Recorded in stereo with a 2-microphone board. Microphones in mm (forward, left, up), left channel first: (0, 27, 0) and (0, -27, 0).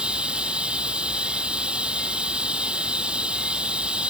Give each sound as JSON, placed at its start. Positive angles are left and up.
{"t": 0.0, "sound": "running water", "side_deg": -20}